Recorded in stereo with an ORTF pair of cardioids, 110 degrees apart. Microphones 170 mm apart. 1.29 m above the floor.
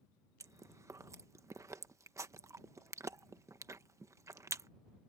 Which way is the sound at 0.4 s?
15° right.